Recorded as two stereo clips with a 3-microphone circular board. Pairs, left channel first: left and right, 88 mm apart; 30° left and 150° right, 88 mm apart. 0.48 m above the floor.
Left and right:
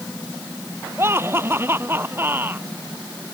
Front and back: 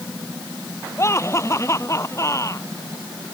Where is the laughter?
30° right; by 2.7 s 25° right.